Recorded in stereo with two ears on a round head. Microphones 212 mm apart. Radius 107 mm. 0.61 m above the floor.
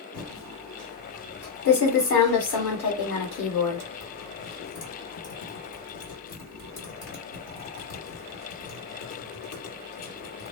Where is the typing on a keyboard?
55° left (ahead or behind), 1.9 m.